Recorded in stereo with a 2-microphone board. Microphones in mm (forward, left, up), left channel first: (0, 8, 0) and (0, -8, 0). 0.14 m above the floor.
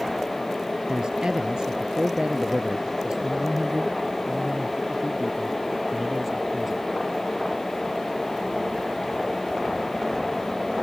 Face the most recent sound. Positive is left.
turn(degrees=-20)  # may be behind; listen again after turning